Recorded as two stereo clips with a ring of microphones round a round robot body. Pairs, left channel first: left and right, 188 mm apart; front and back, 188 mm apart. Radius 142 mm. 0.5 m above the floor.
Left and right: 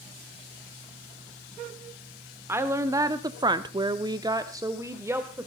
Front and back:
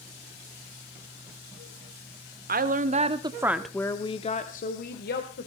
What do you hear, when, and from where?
2.5 s a woman speaking: 165° right, 1.5 m; by 5.5 s 15° right, 2 m